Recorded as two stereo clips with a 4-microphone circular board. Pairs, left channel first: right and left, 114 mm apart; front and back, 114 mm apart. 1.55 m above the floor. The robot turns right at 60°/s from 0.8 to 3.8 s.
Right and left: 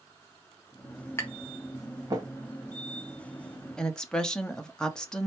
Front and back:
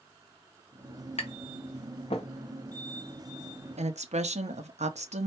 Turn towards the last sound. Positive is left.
turn(degrees=-175)